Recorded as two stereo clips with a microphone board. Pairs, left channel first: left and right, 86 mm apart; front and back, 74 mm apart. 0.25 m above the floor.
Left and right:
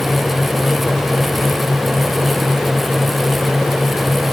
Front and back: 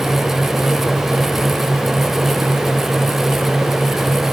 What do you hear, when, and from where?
Only background noise.